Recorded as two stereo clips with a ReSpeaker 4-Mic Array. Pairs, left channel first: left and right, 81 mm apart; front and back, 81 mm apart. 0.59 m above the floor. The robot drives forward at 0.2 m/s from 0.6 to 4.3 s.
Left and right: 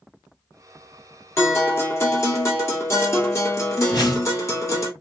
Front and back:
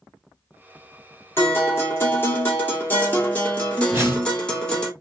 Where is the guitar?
45° left, 1.7 m; by 4.9 s 70° left, 1.5 m.